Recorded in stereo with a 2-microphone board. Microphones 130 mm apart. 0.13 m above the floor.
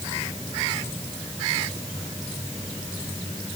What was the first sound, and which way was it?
Only background noise.